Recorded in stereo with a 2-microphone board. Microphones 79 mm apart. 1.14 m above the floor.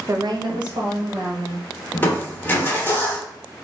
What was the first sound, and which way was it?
A woman speaking, 35° right (ahead or behind).